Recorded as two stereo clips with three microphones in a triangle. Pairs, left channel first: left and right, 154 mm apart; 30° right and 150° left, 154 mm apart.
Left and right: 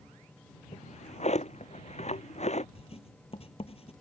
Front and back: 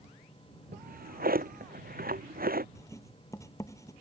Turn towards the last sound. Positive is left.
turn(degrees=40)